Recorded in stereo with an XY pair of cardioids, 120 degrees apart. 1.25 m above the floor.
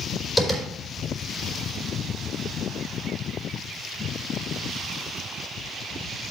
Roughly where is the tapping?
Ahead.